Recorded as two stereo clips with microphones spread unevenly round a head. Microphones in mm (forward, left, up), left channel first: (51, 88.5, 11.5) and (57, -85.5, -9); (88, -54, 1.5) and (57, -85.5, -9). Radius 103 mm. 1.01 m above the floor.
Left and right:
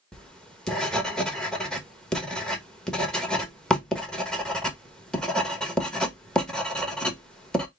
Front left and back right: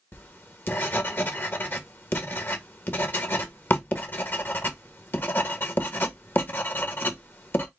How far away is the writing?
About 1.2 m.